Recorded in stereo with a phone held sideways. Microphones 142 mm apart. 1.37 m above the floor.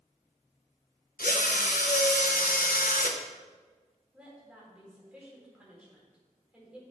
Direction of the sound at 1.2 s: 75° left (ahead or behind).